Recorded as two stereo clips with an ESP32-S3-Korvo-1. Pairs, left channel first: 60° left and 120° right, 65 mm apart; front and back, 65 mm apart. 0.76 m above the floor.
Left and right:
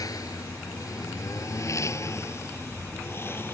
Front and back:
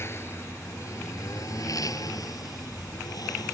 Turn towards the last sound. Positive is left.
turn(degrees=5)